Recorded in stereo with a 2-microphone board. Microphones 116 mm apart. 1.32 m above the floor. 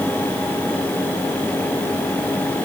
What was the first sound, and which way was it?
Only background noise.